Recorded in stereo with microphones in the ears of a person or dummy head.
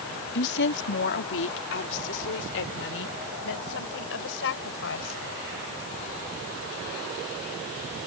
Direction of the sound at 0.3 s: 65° left (ahead or behind).